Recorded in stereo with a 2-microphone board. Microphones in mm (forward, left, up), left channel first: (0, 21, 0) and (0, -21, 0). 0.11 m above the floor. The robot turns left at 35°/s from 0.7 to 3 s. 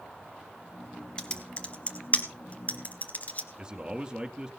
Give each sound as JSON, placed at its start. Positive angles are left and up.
{"t": 1.2, "sound": "typing on a keyboard", "side_deg": 20, "distance_m": 1.7}
{"t": 3.6, "sound": "a man speaking", "side_deg": -20, "distance_m": 1.9}